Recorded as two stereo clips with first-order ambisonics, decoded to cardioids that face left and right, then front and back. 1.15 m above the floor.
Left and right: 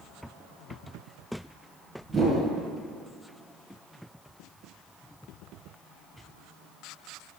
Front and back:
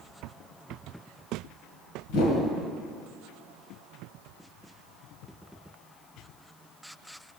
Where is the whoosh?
5° right, 1.9 m.